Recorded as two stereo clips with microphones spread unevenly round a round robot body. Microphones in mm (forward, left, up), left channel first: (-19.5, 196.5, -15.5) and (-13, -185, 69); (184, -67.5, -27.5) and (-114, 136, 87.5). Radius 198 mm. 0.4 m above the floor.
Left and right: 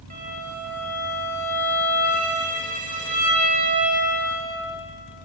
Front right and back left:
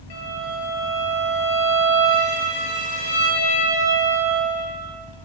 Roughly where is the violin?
Ahead.